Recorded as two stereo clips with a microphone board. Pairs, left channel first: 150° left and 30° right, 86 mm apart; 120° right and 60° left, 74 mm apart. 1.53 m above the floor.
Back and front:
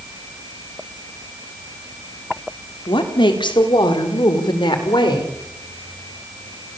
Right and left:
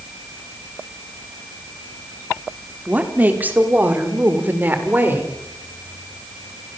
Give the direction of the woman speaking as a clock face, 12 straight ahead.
8 o'clock.